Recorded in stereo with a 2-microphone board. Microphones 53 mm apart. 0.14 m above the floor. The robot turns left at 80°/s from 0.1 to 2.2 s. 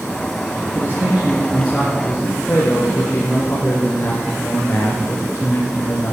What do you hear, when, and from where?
0.8 s a man speaking: 100° right, 2.5 m; by 6.2 s 140° left, 2.5 m